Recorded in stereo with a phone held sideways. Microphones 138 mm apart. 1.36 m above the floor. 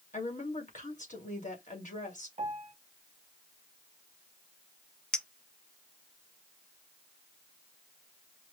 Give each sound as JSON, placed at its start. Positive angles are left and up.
{"t": 0.1, "sound": "a woman speaking", "side_deg": 65, "distance_m": 2.0}
{"t": 2.4, "sound": "a piano", "side_deg": -65, "distance_m": 1.0}
{"t": 5.1, "sound": "a clink", "side_deg": 5, "distance_m": 0.6}